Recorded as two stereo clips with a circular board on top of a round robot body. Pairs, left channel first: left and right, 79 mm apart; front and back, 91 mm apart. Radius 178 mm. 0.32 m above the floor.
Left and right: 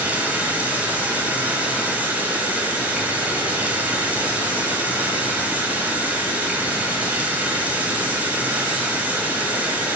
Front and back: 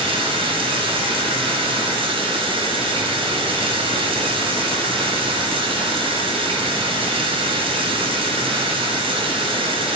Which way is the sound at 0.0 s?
160° right.